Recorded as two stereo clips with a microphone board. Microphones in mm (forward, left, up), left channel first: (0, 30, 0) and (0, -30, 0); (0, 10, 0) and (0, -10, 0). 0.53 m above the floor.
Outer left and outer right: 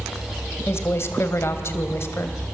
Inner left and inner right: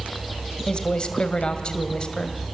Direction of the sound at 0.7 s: 45° left (ahead or behind).